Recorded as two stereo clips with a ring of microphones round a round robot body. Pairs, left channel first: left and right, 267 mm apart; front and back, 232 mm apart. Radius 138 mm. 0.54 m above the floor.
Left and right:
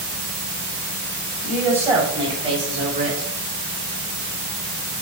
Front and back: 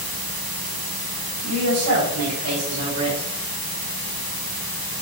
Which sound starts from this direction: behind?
A woman speaking, at 1.4 s.